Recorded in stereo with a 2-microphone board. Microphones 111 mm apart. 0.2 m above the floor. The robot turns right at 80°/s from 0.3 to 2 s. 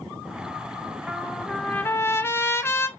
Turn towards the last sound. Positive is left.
turn(degrees=25)  # may be behind; listen again after turning